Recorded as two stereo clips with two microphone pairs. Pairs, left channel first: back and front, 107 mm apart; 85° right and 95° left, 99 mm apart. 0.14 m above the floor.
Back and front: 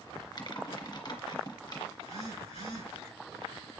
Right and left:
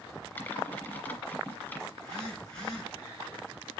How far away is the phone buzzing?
About 6.5 m.